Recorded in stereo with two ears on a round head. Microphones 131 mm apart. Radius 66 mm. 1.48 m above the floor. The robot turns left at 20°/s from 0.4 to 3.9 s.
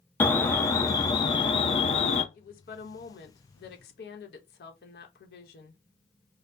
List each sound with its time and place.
0.2 s an alarm: 165° left, 0.6 m; by 2.2 s 130° left, 0.6 m
2.3 s a woman speaking: 115° left, 0.9 m; by 5.8 s 85° left, 0.9 m